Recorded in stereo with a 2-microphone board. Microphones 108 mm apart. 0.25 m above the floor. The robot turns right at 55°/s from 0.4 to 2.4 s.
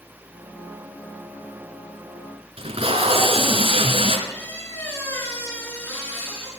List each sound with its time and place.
2.6 s tape being pulled: 60° right (ahead or behind), 2 m
4.3 s a squeak: 20° left (ahead or behind), 5.5 m